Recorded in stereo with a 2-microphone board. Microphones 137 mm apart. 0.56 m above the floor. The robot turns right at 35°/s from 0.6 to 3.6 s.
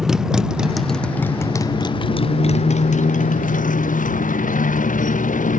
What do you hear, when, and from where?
0.0 s a motorcycle: 5° right (ahead or behind); by 5.6 s 75° left (ahead or behind)